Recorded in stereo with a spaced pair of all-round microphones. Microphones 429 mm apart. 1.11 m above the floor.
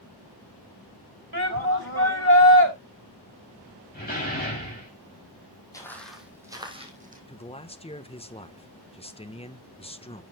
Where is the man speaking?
15° left (ahead or behind), 1.1 m.